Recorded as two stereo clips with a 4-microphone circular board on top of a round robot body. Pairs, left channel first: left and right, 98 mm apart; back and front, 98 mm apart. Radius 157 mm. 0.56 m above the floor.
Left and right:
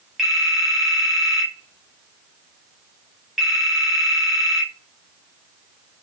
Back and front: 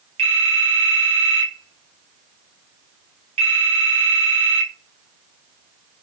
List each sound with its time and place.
0.2 s a phone ringing: 5° right, 1.9 m